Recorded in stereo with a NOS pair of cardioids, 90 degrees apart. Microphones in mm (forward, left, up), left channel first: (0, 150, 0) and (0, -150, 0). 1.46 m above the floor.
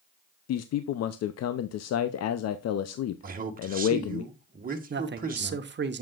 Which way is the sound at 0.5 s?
55° left.